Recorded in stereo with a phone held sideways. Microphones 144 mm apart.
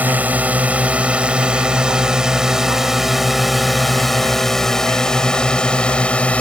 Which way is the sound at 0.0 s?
10° right (ahead or behind).